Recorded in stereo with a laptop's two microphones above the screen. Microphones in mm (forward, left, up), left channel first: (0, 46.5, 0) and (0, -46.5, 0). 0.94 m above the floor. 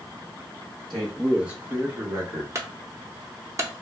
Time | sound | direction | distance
0.9 | a man speaking | 5° left (ahead or behind) | 1.1 m
2.5 | a clunk | 35° right (ahead or behind) | 0.6 m